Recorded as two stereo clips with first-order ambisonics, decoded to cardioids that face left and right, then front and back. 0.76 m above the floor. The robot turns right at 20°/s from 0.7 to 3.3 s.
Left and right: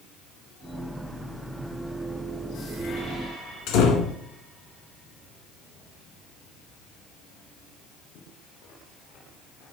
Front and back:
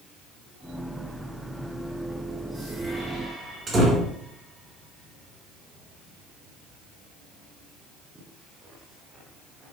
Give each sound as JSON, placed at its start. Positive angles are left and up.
{"t": 3.7, "sound": "a door slam", "azimuth_deg": 105, "distance_m": 1.5}